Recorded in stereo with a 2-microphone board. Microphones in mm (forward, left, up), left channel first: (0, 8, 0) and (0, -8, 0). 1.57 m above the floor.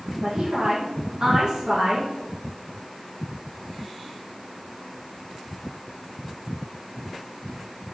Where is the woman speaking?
60° right (ahead or behind), 1.6 m.